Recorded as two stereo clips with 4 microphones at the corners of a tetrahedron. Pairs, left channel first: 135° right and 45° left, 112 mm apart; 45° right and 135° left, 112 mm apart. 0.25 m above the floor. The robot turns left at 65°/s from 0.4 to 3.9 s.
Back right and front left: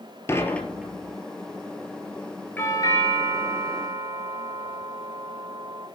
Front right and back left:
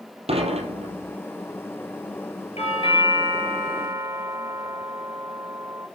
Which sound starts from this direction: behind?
Dishes clattering, at 0.3 s.